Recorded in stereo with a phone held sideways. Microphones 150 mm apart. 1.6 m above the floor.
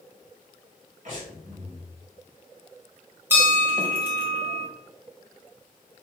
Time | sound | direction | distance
1.1 | breathing | 55° right (ahead or behind) | 2 m
3.3 | a bell | 15° right (ahead or behind) | 1.8 m